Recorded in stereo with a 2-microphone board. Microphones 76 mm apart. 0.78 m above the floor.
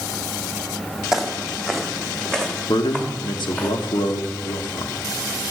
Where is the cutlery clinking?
No cutlery clinking in this recording.